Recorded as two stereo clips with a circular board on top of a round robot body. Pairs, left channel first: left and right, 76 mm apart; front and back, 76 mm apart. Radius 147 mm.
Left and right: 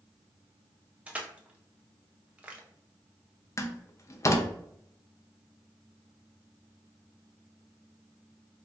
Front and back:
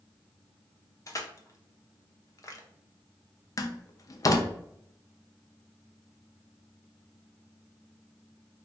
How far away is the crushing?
About 0.8 m.